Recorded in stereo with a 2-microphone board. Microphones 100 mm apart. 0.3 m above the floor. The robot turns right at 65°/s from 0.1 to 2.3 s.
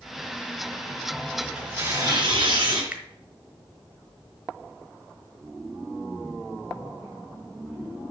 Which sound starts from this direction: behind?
Tearing paper, at 1.4 s.